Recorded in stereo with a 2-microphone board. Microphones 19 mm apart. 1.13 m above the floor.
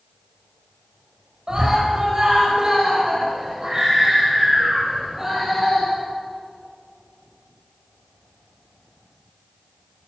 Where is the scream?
40° right (ahead or behind), 6.5 m; by 5.9 s 10° right (ahead or behind), 7 m.